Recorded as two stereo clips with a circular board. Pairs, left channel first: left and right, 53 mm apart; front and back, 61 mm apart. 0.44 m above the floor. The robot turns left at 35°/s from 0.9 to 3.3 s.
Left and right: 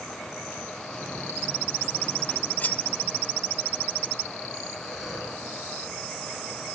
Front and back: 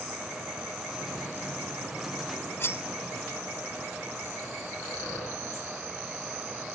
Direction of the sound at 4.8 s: 5° right.